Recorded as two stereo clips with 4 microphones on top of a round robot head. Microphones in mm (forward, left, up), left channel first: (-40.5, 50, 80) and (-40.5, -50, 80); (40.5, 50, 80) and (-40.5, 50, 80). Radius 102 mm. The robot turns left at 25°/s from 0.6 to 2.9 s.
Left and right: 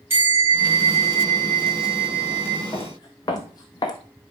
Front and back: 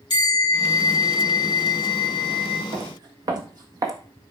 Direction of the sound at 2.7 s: 150° left.